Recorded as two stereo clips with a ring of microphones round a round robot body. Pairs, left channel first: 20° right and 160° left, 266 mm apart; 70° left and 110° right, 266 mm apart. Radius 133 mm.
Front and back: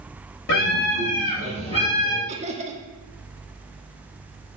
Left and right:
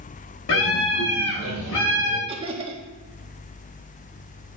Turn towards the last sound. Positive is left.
turn(degrees=-160)